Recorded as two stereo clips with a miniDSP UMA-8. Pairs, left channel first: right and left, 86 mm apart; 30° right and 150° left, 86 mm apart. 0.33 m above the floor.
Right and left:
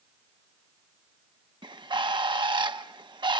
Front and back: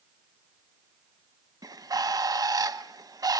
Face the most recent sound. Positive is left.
turn(degrees=110)